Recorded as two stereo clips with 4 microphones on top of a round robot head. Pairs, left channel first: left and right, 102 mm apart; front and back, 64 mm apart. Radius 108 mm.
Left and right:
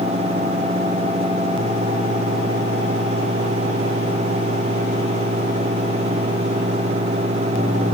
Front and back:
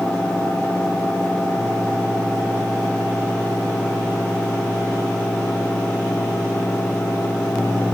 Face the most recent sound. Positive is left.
No sound to turn to.